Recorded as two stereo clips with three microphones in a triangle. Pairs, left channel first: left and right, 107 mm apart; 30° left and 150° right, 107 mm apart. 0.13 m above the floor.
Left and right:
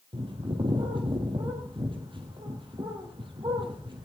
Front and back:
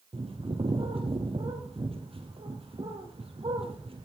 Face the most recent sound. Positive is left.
turn(degrees=-125)